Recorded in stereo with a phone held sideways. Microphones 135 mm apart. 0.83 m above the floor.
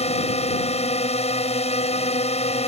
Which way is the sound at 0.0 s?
50° left (ahead or behind).